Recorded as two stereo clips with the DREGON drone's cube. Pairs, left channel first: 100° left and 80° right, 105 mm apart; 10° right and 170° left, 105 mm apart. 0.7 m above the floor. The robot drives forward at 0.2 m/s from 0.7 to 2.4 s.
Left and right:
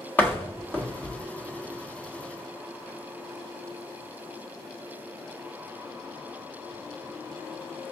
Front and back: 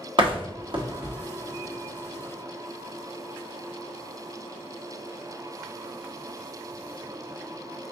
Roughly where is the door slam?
Behind.